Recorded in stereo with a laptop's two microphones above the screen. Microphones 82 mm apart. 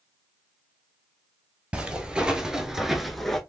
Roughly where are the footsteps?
Centre.